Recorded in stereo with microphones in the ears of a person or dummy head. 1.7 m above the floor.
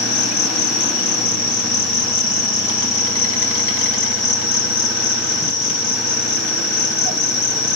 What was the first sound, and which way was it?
An insect, 75° left (ahead or behind).